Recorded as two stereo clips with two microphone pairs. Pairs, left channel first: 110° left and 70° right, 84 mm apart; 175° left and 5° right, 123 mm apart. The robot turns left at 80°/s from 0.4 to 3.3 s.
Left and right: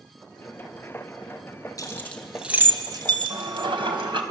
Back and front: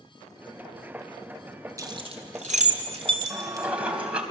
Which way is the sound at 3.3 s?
85° right.